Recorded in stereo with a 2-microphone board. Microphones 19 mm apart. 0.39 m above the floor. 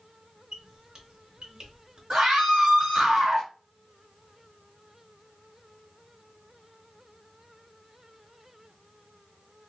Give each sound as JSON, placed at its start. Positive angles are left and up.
{"t": 0.5, "sound": "a squeak", "side_deg": -45, "distance_m": 1.0}
{"t": 2.1, "sound": "a scream", "side_deg": -50, "distance_m": 1.9}